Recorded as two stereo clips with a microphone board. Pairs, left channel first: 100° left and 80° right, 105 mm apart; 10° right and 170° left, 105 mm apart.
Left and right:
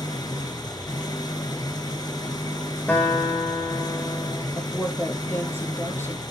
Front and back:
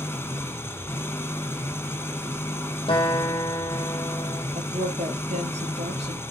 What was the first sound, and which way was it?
An engine running, 55° left.